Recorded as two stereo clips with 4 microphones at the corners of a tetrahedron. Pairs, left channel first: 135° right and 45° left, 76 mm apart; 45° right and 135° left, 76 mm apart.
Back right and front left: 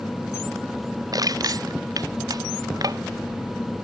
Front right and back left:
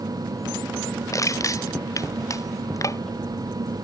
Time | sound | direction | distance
1.1 | crushing | 5° left | ?